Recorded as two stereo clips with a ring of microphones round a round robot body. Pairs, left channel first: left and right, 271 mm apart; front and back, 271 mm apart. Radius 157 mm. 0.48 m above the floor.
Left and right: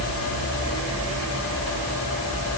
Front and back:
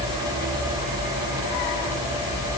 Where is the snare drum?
No snare drum in this recording.